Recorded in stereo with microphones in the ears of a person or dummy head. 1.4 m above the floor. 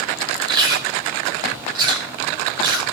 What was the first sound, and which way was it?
Chewing, 20° right (ahead or behind).